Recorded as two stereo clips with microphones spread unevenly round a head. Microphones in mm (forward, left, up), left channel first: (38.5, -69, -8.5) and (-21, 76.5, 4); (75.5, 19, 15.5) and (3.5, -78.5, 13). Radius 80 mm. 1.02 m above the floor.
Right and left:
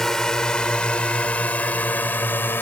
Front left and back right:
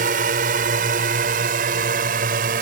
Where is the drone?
155° right; by 2.6 s 145° right.